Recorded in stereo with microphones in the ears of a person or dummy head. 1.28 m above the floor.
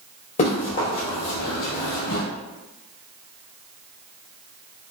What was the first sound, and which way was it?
Running footsteps, 45° left (ahead or behind).